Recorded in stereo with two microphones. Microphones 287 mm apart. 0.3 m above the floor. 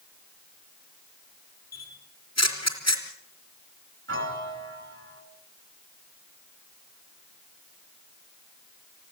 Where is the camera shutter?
65° left (ahead or behind), 3.5 m.